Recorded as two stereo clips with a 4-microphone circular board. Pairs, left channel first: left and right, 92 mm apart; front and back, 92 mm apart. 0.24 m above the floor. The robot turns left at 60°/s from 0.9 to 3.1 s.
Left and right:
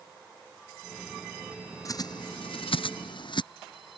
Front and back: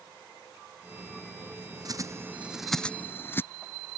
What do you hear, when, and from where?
1.9 s a bird: 140° left; by 3.4 s 65° left